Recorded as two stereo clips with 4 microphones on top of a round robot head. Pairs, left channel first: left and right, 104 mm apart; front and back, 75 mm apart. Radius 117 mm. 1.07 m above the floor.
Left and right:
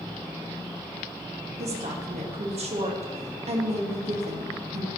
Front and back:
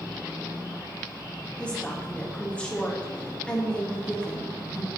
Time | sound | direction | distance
1.6 | a woman speaking | 75° right | 1.7 m